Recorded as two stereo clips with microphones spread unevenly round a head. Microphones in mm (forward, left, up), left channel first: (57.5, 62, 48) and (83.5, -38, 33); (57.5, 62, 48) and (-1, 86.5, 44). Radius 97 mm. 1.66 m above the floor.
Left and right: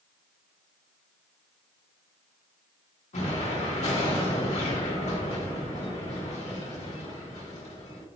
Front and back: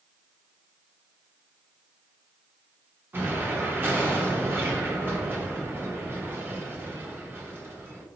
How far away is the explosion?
About 1.2 m.